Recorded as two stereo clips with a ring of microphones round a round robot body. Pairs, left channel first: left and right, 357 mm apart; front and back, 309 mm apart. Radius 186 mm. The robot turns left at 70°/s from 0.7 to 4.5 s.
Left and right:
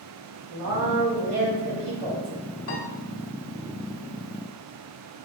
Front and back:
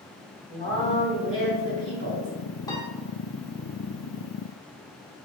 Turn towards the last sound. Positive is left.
turn(degrees=-55)